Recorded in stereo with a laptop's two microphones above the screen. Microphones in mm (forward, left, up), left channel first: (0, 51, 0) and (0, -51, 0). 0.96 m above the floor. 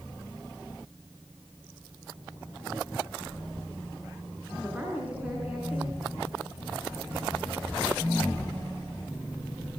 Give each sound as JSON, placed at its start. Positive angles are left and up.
{"t": 4.5, "sound": "a woman speaking", "side_deg": -15, "distance_m": 9.5}